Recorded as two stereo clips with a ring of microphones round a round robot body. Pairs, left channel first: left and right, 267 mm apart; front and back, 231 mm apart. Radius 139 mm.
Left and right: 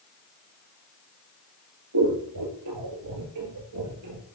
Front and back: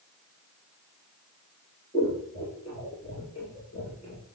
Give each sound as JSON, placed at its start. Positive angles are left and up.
{"t": 1.9, "sound": "scissors", "azimuth_deg": -70, "distance_m": 2.5}